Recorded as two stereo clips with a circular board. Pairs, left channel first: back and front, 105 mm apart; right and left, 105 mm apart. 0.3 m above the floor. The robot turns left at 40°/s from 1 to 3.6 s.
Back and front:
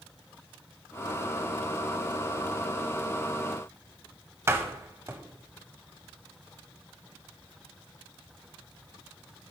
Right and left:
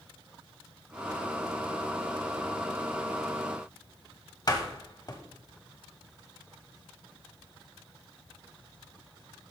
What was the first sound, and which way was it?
A door slam, 55° right.